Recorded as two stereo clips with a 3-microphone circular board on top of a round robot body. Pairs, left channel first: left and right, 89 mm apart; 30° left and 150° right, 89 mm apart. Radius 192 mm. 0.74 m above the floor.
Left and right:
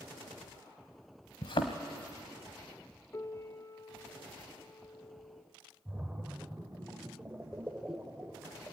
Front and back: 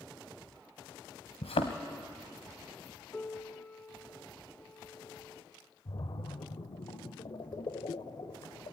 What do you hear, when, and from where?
1.4 s a thud: 50° left, 0.8 m
3.1 s a piano: 85° left, 1.2 m
5.8 s a splash: 15° right, 1.0 m